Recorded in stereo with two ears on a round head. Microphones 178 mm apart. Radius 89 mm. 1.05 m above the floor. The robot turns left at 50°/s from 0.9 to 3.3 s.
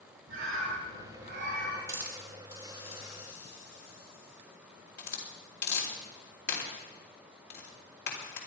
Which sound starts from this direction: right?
A bird, at 0.3 s.